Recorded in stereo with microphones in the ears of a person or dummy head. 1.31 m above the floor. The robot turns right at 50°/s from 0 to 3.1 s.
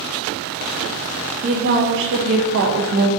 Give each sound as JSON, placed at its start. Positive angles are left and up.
{"t": 1.4, "sound": "a woman speaking", "azimuth_deg": -145, "distance_m": 0.6}